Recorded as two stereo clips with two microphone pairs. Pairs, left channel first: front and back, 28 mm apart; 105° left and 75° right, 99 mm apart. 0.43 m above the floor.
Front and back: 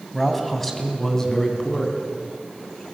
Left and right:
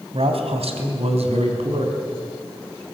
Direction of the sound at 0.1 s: 95° right.